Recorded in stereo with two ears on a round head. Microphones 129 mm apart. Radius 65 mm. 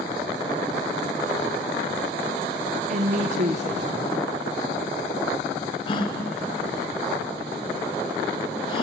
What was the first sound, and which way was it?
A woman speaking, 55° right (ahead or behind).